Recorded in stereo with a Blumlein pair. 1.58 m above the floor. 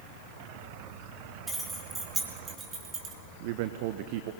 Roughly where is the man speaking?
Ahead right.